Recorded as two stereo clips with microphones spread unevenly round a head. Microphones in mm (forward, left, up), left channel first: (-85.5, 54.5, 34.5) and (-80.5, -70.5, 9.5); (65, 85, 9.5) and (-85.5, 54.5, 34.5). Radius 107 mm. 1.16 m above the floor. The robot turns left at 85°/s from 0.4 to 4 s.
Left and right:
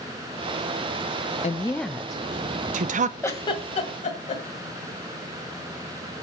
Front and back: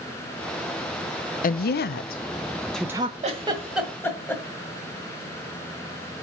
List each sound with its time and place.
1.4 s a woman speaking: 40° left, 0.6 m; by 3.1 s 105° right, 0.6 m
3.2 s a giggle: 160° left, 2.0 m; by 4.4 s 90° left, 2.0 m